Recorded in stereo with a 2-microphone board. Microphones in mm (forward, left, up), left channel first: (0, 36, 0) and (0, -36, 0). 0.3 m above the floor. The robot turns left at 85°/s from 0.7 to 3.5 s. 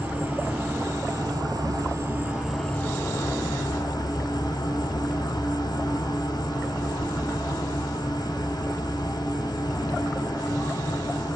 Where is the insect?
25° right, 0.8 m; by 11.4 s 95° left, 0.8 m.